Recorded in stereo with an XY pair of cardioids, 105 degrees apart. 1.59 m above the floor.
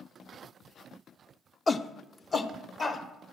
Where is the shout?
30° left, 0.6 m.